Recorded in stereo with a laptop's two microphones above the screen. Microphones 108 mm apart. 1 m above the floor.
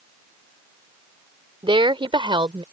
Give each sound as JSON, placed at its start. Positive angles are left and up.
{"t": 1.6, "sound": "a woman speaking", "side_deg": -55}